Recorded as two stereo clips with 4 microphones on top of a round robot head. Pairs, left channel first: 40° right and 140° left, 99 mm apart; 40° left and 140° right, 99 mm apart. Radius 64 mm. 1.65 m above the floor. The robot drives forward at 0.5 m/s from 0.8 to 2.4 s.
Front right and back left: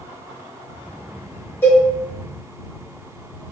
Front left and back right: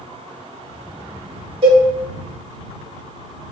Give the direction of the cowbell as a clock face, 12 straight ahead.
3 o'clock.